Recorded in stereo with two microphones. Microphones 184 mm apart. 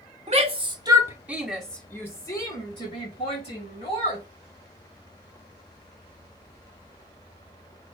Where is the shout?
40° right (ahead or behind), 1.3 m; by 4.2 s 40° left (ahead or behind), 2.5 m.